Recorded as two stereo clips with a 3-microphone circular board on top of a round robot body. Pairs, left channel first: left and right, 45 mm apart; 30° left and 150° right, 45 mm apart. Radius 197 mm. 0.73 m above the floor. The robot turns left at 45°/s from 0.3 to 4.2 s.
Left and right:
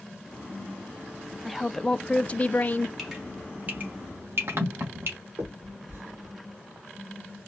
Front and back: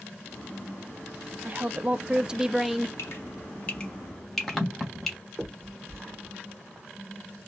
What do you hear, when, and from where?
1.4 s a woman speaking: 175° right, 0.6 m; by 2.9 s 120° left, 0.6 m
3.0 s dripping: straight ahead, 1.1 m; by 5.2 s 55° right, 1.1 m
5.4 s a finger snap: 60° right, 2.5 m